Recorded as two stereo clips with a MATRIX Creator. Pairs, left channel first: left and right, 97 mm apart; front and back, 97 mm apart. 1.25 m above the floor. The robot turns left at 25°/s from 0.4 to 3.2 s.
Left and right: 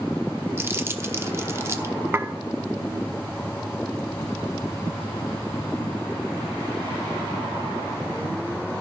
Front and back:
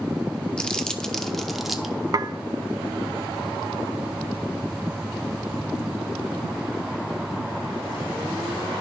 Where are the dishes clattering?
150° right, 0.6 m; by 2.3 s 155° right, 0.6 m.